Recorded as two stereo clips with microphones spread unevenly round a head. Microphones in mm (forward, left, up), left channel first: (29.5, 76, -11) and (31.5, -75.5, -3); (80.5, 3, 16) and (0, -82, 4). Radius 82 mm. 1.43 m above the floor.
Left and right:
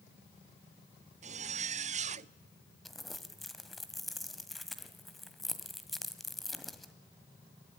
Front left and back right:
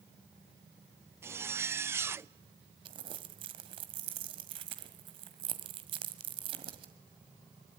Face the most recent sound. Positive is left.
turn(degrees=180)